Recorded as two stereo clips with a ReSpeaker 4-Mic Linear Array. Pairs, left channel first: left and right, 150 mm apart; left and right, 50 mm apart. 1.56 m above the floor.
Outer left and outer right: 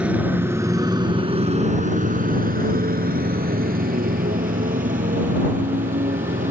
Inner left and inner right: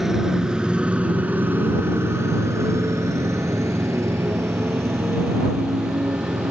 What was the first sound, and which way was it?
A motorcycle, 5° right (ahead or behind).